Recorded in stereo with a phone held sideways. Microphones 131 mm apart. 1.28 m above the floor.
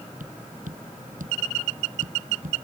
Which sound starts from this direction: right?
Tapping, at 0.2 s.